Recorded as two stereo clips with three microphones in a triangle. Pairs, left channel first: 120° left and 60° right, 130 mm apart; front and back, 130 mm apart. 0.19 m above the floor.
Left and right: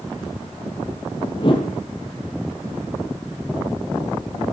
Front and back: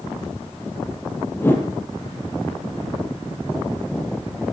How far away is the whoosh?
About 3 m.